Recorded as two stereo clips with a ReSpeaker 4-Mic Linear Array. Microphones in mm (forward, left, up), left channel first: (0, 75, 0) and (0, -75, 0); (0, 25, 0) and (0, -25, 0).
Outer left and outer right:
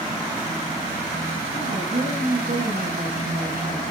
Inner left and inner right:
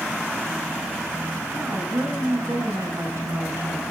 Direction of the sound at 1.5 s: 70° right (ahead or behind).